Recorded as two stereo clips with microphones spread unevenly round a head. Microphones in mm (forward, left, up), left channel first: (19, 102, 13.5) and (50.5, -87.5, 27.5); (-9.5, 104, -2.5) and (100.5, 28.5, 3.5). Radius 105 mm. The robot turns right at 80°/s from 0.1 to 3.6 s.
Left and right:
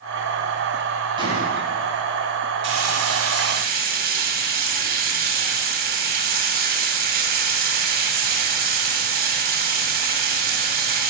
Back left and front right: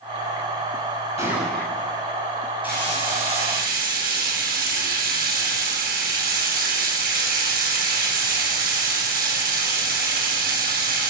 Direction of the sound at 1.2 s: 150° right.